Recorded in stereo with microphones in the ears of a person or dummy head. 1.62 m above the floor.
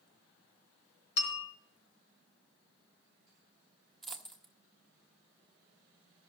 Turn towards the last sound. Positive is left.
turn(degrees=-5)  # may be behind; listen again after turning